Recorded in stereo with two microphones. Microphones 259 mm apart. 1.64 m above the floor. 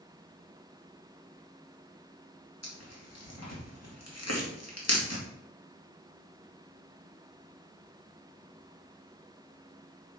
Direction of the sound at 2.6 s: 70° left (ahead or behind).